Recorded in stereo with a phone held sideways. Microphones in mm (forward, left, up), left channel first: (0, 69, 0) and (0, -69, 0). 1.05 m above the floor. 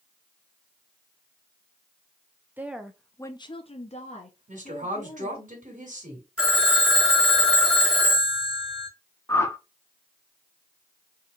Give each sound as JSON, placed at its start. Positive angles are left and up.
{"t": 2.6, "sound": "a woman speaking", "side_deg": -15, "distance_m": 0.7}
{"t": 4.5, "sound": "a woman speaking", "side_deg": -70, "distance_m": 1.9}
{"t": 6.4, "sound": "a phone ringing", "side_deg": -5, "distance_m": 1.9}
{"t": 9.3, "sound": "a whoosh", "side_deg": 20, "distance_m": 0.7}